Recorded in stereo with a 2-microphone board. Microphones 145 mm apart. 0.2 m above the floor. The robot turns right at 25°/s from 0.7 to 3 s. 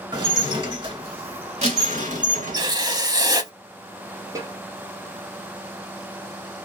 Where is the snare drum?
20° right (ahead or behind), 0.8 m.